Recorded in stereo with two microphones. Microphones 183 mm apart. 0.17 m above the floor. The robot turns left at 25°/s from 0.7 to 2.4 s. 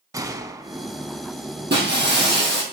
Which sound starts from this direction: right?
Breaking glass, at 1.7 s.